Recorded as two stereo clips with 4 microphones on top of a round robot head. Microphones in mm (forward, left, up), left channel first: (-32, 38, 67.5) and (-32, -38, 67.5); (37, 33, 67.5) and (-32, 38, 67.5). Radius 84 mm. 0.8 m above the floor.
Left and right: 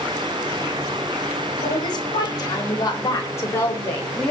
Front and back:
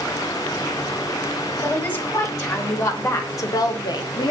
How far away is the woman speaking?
About 4 m.